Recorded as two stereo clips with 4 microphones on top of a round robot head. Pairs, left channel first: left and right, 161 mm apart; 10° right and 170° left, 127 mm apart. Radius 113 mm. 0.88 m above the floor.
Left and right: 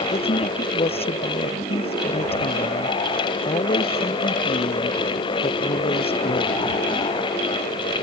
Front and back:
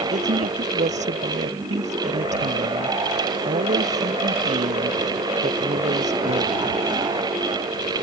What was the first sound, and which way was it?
A woman speaking, 145° left.